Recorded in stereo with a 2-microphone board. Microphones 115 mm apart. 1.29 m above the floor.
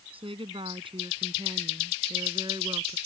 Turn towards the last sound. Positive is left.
turn(degrees=-40)  # may be behind; listen again after turning